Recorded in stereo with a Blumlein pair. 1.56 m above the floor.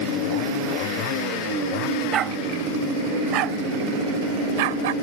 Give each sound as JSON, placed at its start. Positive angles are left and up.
{"t": 2.1, "sound": "a dog barking", "azimuth_deg": -30}